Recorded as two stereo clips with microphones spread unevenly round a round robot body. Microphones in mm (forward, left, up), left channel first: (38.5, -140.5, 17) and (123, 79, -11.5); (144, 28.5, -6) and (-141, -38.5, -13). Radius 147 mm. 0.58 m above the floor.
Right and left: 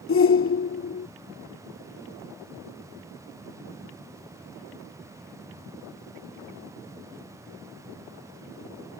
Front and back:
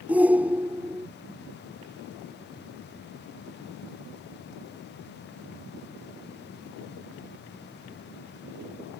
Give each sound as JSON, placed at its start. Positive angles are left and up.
{"t": 0.1, "sound": "a shout", "azimuth_deg": -85}